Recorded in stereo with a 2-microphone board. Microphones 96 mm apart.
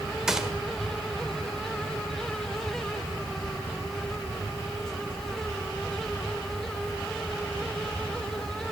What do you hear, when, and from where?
0.3 s a gunshot: 5° right (ahead or behind), 1.3 m